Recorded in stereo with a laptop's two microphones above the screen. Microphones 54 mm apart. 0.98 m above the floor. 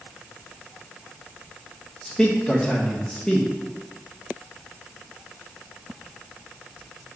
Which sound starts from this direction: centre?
A man speaking, at 2.0 s.